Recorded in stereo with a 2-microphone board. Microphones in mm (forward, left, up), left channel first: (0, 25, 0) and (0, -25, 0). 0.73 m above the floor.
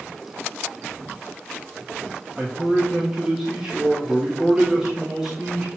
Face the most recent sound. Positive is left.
turn(degrees=-10)  # may be behind; listen again after turning